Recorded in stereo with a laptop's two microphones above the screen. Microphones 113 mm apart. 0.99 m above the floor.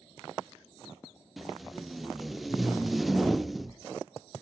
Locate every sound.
1.4 s tape being pulled: centre (ahead or behind), 0.6 m